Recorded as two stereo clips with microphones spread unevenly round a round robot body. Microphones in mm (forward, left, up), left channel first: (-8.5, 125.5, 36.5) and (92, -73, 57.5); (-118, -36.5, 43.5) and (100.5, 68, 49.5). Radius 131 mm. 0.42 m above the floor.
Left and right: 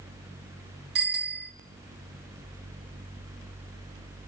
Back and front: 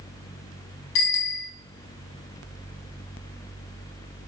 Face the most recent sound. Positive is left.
turn(degrees=-115)